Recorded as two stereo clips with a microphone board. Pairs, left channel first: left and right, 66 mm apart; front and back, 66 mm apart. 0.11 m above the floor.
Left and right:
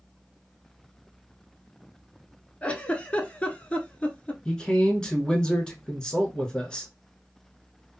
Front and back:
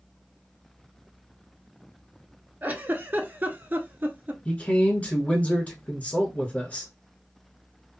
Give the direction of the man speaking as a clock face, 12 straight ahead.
11 o'clock.